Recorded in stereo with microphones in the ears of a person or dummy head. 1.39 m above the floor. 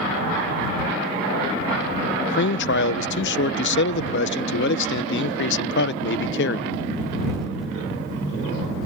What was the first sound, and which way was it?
A man speaking, 60° left (ahead or behind).